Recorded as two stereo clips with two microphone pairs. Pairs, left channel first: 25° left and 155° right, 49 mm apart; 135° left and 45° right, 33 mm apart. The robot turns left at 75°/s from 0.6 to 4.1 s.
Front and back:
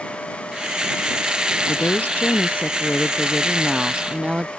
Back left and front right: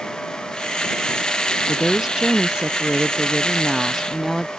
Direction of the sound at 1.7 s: 50° left.